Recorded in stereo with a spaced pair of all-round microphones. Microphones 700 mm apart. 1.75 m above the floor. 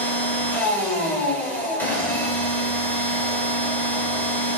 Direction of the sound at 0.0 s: Centre (ahead or behind).